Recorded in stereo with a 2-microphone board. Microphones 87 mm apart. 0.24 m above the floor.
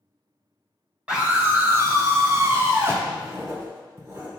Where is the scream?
10° right (ahead or behind), 1.2 m; by 3.0 s 25° right (ahead or behind), 2.5 m.